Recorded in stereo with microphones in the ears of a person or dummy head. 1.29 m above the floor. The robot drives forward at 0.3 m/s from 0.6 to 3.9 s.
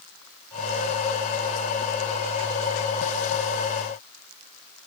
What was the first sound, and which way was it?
Only background noise.